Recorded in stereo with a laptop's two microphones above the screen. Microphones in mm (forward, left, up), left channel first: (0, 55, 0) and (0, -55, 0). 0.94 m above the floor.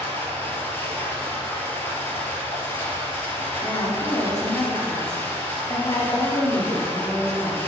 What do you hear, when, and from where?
0.0 s running water: 20° left (ahead or behind), 3 m
3.6 s a woman speaking: 35° left (ahead or behind), 2 m